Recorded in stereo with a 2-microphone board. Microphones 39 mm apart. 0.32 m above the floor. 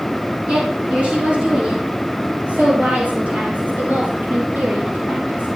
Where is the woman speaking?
25° right (ahead or behind), 5.5 m; by 5.5 s 40° right (ahead or behind), 8 m.